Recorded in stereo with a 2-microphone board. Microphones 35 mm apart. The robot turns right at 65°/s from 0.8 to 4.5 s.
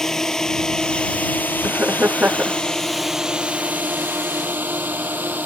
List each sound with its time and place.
0.0 s a drone: 15° left (ahead or behind); by 5.5 s 60° right (ahead or behind)
1.6 s laughter: 95° right; by 2.6 s 35° right